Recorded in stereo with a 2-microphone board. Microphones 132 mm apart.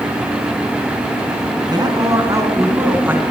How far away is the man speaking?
About 4.5 m.